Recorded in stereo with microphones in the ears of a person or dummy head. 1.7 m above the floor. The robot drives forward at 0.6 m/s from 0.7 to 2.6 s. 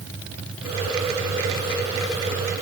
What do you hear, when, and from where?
Only background noise.